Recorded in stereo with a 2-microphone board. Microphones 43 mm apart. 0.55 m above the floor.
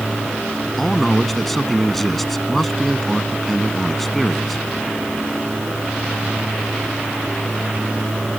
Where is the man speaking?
5° left (ahead or behind).